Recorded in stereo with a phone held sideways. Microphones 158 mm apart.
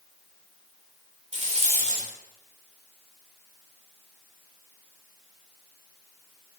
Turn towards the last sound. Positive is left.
turn(degrees=-50)  # may be behind; listen again after turning